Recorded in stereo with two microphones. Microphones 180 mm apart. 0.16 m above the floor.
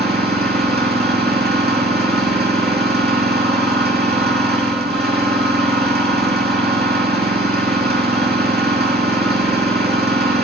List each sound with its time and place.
0.0 s an engine running: 70° right (ahead or behind), 3.5 m